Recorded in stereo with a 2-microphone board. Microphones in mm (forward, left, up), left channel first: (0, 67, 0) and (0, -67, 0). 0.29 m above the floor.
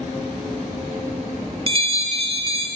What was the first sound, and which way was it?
A bell, 45° right (ahead or behind).